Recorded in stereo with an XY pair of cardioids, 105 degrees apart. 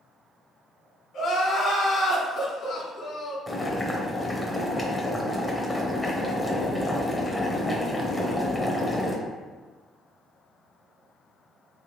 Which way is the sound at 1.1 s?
60° left.